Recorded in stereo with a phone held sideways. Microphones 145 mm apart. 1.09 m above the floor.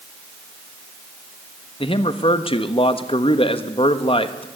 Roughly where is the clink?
I don't hear a clink.